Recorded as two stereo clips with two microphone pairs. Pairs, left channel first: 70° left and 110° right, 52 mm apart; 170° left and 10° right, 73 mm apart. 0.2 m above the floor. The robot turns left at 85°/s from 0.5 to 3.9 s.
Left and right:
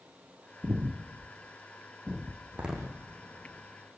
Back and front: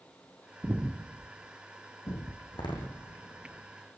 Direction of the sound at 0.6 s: 75° right.